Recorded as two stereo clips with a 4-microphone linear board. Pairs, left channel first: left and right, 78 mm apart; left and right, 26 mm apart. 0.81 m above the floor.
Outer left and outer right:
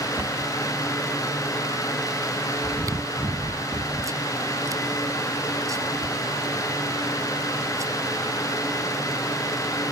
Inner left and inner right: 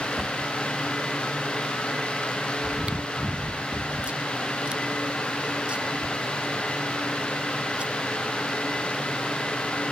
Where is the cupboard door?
40° right (ahead or behind).